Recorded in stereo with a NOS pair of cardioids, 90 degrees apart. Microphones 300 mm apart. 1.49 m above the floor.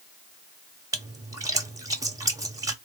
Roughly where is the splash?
Ahead.